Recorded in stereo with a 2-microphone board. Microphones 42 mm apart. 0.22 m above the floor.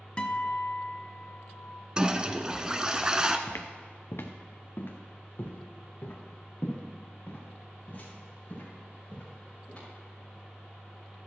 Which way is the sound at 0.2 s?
25° left (ahead or behind).